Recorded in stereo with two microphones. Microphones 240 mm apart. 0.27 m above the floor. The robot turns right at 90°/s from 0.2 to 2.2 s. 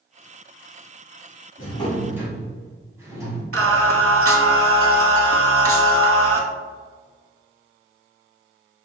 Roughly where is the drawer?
Behind left.